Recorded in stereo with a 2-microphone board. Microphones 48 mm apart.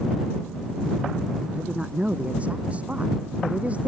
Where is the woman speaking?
30° right (ahead or behind).